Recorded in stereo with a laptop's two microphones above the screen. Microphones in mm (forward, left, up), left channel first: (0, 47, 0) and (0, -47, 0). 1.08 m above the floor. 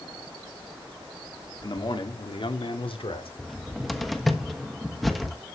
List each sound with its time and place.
1.6 s a man speaking: 55° left (ahead or behind), 2 m; by 3.3 s 80° left, 3 m
3.4 s a cupboard door: centre (ahead or behind), 1.3 m